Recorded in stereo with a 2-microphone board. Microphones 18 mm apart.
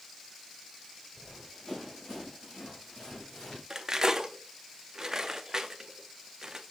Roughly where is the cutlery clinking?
Right.